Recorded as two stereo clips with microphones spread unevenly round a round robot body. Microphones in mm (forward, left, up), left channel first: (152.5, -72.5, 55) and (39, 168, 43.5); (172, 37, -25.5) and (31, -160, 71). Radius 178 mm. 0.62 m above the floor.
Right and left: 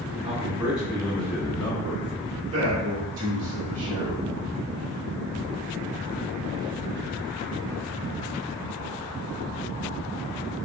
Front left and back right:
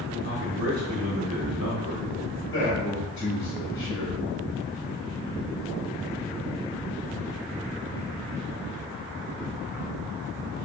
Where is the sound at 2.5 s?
120° left, 1.9 m.